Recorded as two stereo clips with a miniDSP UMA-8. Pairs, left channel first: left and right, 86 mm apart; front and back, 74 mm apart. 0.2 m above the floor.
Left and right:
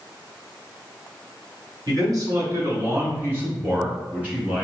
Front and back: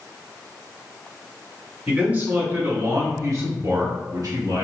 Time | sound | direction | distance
1.9 | a man speaking | 110° right | 1.7 m